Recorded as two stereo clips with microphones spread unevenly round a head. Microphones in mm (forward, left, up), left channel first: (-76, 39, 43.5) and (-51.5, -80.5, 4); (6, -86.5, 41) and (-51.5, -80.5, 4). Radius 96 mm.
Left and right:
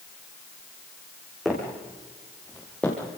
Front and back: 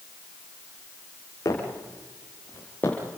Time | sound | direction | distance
1.4 | footsteps | 20° left | 4 m